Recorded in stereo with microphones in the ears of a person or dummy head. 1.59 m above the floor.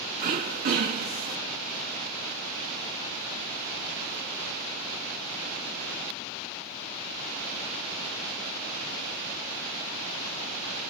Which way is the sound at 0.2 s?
40° right (ahead or behind).